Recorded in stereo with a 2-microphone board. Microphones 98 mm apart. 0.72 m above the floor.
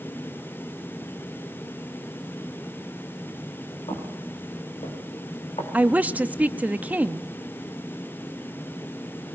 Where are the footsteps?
70° left (ahead or behind), 6 m; by 5.6 s 80° left, 4.5 m.